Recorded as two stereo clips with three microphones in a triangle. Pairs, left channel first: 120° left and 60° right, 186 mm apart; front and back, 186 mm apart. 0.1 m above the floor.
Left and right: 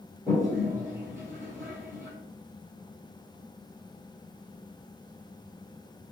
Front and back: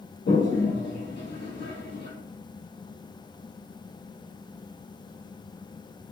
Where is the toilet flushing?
20° left, 1.3 m.